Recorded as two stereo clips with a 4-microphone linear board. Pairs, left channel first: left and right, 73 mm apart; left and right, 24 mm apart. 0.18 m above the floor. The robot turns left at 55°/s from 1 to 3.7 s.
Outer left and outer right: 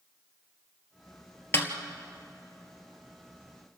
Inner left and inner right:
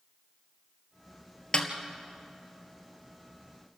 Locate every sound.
1.5 s a snare drum: 35° left (ahead or behind), 1.8 m; by 1.7 s 40° left (ahead or behind), 1.8 m